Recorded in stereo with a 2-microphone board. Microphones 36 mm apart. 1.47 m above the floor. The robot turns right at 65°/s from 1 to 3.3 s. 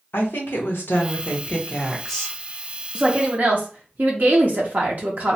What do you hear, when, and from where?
0.1 s a woman speaking: 105° left, 1.0 m; by 2.4 s 165° right, 1.0 m
3.0 s a woman speaking: 30° right (ahead or behind), 0.6 m; by 5.4 s 50° right (ahead or behind), 0.6 m